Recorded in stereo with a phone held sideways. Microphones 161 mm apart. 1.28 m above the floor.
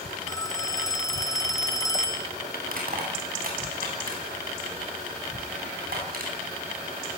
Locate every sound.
0.3 s a phone ringing: 20° left (ahead or behind), 1.6 m
2.6 s crushing: 65° right (ahead or behind), 8.5 m